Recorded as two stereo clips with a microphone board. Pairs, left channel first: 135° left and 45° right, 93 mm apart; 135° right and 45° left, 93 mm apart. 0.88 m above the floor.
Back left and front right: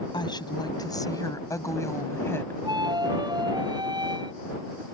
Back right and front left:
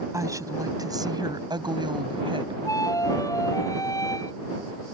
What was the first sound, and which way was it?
A woman speaking, 100° left.